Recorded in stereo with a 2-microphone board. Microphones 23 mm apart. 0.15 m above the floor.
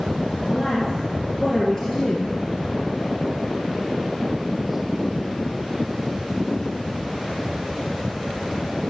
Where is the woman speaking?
20° left (ahead or behind), 3.5 m.